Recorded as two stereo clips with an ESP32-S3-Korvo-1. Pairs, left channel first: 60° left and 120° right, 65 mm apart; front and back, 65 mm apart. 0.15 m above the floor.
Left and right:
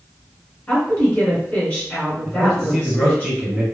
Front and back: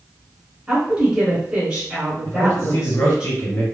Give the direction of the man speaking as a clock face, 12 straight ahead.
1 o'clock.